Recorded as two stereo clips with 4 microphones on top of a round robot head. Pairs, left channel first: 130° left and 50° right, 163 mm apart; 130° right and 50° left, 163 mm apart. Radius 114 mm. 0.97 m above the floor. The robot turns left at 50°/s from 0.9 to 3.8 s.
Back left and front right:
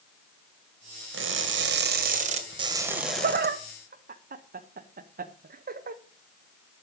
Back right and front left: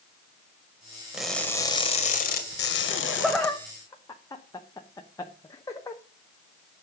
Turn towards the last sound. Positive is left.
turn(degrees=-65)